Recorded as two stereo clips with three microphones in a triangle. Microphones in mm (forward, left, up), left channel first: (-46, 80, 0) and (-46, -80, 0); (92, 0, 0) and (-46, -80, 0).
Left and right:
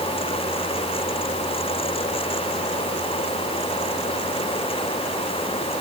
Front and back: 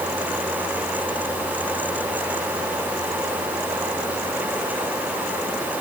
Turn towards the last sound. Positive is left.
No sound to turn to.